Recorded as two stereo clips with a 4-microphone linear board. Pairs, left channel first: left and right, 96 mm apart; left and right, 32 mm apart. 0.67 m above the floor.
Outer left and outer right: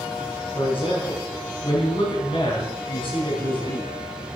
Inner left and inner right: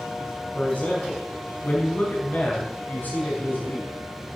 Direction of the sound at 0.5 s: 65° left (ahead or behind).